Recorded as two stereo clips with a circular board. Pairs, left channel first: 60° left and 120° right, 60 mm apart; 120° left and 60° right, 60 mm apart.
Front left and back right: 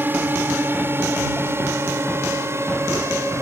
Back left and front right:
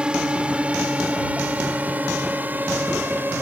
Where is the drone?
120° right; by 3.4 s 105° right.